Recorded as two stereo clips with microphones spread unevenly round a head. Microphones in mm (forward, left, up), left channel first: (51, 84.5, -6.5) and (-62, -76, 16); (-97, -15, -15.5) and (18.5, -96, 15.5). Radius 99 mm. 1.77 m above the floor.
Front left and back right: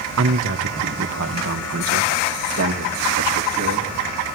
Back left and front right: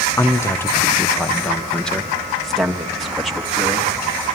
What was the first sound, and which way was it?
A man speaking, 145° right.